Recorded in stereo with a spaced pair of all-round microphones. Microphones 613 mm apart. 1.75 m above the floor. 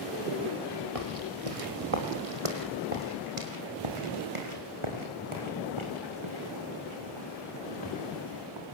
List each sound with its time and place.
0.9 s footsteps: 60° right (ahead or behind), 3.5 m; by 8.8 s 45° right (ahead or behind), 9 m